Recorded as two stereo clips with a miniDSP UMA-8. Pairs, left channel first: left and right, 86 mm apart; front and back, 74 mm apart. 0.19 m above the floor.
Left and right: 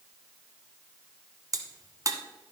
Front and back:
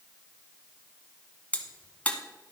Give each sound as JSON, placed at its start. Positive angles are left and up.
{"t": 1.5, "sound": "a crack", "azimuth_deg": -65, "distance_m": 1.0}